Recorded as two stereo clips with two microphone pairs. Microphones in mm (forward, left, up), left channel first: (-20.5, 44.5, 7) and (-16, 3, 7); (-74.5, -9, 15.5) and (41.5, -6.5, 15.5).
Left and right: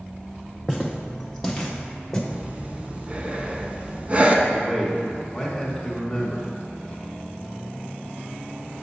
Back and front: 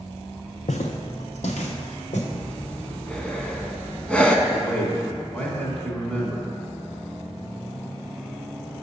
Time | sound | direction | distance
0.7 | footsteps | straight behind | 0.6 m
2.3 | breathing | 110° right | 0.5 m
4.5 | a man speaking | 130° left | 1.0 m